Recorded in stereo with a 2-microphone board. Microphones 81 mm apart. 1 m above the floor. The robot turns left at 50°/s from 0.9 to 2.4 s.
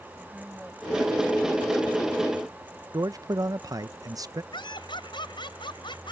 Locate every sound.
0.2 s a woman speaking: 10° right; by 2.2 s 75° right
2.9 s a man speaking: 45° right (ahead or behind)
4.5 s laughter: 75° left (ahead or behind)